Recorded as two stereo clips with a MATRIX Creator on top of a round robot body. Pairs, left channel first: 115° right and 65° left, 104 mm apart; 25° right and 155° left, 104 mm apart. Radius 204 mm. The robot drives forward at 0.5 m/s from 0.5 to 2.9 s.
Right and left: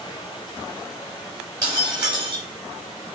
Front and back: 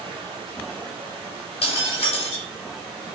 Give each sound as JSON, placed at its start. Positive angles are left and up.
{"t": 0.0, "sound": "running water", "azimuth_deg": -165, "distance_m": 1.0}
{"t": 1.6, "sound": "breaking glass", "azimuth_deg": 10, "distance_m": 1.7}